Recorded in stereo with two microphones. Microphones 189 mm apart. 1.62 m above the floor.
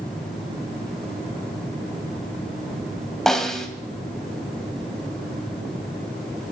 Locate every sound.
3.3 s a snare drum: centre (ahead or behind), 1.9 m